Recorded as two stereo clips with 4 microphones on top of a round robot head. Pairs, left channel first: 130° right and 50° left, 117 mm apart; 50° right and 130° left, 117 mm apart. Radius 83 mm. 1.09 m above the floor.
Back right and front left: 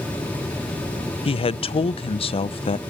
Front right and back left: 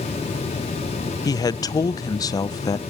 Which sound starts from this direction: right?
A man speaking, at 1.2 s.